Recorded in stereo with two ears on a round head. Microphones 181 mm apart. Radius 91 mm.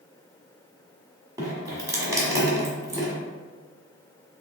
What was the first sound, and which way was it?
Dripping, 15° right (ahead or behind).